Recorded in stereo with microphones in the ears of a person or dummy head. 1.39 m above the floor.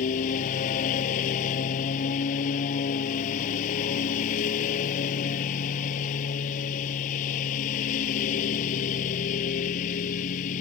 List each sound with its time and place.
0.0 s a lawn mower: 45° left (ahead or behind)